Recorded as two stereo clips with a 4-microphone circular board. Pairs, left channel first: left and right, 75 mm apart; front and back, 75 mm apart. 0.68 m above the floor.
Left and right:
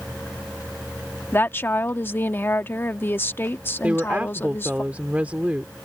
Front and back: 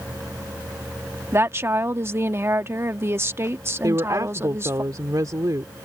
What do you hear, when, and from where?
1.3 s a woman speaking: 140° left
3.8 s a woman speaking: 155° right